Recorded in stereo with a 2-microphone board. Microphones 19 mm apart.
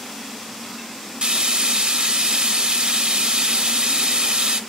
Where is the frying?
60° right (ahead or behind), 0.5 m.